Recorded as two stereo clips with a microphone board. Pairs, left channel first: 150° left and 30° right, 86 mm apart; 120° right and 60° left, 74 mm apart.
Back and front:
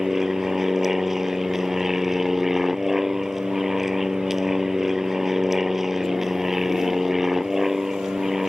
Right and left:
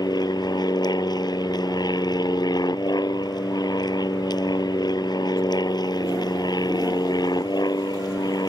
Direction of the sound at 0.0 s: 115° right.